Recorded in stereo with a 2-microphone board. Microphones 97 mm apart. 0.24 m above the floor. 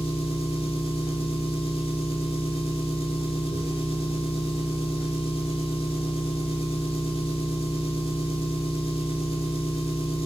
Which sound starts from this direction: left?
An engine running, at 0.0 s.